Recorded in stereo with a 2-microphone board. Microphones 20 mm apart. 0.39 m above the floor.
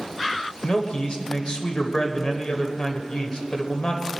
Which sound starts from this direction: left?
A man speaking, at 0.6 s.